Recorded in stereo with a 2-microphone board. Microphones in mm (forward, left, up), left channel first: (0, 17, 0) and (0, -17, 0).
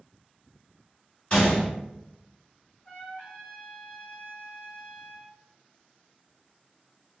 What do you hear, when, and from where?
1.3 s a gunshot: 25° left (ahead or behind), 1.8 m
2.9 s a trumpet: 35° left (ahead or behind), 1.4 m